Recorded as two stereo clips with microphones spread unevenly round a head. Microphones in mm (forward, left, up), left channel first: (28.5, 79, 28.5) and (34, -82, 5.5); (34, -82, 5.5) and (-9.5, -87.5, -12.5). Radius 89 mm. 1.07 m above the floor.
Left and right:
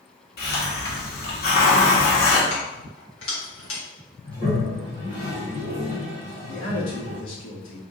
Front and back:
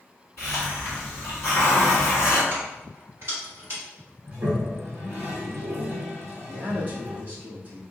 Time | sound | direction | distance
0.4 | a hiss | 70° left | 1.5 m
2.5 | keys jangling | 120° left | 2.5 m
4.2 | a toilet flushing | 155° left | 1.8 m
6.5 | a man speaking | 115° left | 2 m